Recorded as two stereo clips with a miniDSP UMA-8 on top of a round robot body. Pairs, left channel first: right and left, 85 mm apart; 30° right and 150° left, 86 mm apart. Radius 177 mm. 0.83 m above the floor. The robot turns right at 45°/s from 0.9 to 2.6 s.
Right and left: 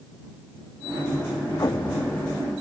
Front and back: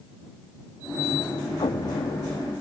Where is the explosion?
45° right; by 2.5 s 5° right.